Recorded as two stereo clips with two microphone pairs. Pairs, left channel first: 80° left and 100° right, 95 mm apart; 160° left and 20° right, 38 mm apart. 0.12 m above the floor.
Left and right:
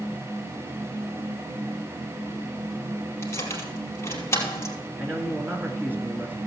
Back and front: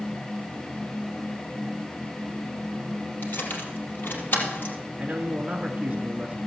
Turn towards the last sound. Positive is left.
turn(degrees=-45)